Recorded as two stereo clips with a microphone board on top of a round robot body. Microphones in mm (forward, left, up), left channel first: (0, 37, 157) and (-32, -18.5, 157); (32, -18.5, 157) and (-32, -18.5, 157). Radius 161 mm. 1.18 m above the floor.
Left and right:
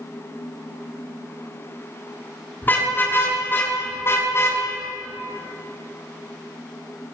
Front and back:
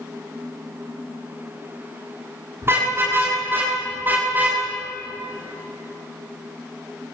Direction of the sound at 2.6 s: 125° left.